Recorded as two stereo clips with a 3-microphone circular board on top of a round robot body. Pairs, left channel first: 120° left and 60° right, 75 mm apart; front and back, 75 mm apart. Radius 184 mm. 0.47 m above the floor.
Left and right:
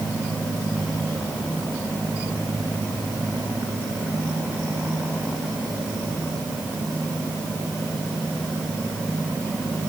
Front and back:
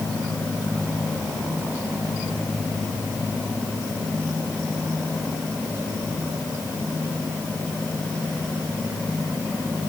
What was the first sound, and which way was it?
Only background noise.